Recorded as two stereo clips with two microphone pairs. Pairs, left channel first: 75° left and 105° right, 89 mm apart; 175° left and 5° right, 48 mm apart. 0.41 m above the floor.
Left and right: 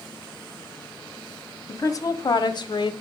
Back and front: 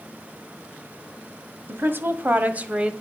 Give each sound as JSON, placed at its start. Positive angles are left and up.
{"t": 1.7, "sound": "a woman speaking", "azimuth_deg": 25, "distance_m": 2.0}